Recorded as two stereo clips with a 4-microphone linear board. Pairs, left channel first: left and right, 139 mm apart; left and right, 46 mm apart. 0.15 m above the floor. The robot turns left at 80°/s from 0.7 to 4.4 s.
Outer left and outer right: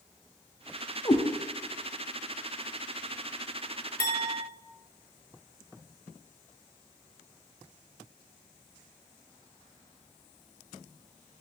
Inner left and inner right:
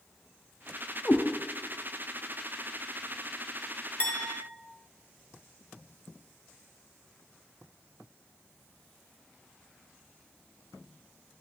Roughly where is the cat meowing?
Left.